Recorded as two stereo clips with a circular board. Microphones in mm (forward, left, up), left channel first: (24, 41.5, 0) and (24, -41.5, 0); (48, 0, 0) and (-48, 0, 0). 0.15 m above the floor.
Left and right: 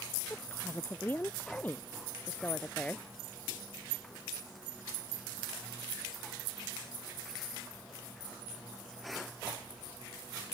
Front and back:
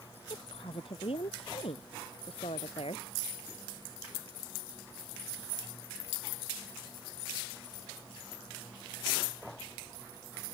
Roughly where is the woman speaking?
Ahead left.